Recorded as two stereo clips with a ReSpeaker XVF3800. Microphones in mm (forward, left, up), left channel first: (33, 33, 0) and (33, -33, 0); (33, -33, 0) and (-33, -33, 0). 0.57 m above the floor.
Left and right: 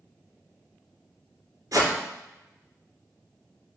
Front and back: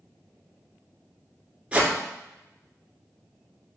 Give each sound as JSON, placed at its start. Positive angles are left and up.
{"t": 1.7, "sound": "a whoosh", "azimuth_deg": -110, "distance_m": 2.0}